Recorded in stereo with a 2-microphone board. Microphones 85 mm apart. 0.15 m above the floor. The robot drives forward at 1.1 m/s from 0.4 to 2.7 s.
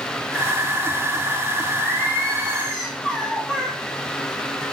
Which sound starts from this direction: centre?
Singing, at 1.8 s.